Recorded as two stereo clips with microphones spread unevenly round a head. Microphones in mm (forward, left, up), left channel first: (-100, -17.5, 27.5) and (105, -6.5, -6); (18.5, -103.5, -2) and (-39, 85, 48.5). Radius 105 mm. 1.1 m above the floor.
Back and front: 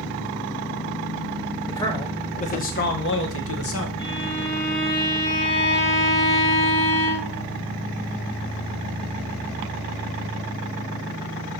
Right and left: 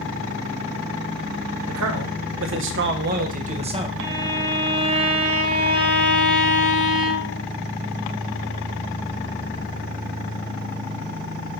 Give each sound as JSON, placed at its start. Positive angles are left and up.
{"t": 1.7, "sound": "a man speaking", "azimuth_deg": 100, "distance_m": 1.2}
{"t": 4.0, "sound": "a violin", "azimuth_deg": 135, "distance_m": 2.0}